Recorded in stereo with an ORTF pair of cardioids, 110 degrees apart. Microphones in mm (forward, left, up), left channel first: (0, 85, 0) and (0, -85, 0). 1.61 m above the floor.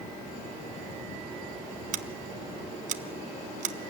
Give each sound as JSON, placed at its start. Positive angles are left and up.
{"t": 1.9, "sound": "scissors", "azimuth_deg": -55, "distance_m": 1.0}